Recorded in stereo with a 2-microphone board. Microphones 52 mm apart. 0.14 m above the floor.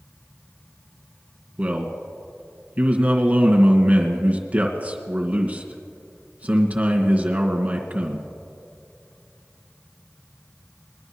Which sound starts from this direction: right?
A man speaking, at 1.6 s.